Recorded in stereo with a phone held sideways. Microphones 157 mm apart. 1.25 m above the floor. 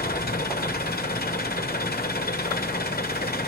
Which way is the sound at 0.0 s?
75° left (ahead or behind).